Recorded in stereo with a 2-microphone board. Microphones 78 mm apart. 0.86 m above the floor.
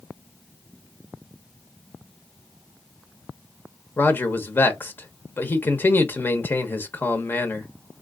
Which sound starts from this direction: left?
A man speaking, at 4.0 s.